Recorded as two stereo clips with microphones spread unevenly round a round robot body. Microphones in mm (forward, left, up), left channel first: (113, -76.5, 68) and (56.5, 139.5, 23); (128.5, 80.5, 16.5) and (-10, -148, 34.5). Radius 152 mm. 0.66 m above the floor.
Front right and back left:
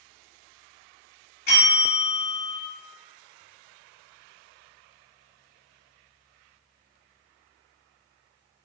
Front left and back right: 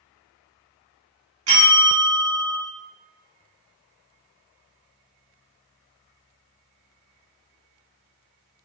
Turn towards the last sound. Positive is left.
turn(degrees=-125)